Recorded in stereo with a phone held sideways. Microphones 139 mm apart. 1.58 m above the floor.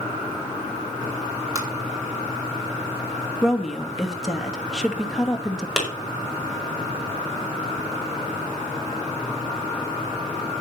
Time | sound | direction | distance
1.6 | tapping | 25° right (ahead or behind) | 4.5 m
3.4 | a woman speaking | centre (ahead or behind) | 2.5 m
5.8 | a clap | 5° right (ahead or behind) | 6 m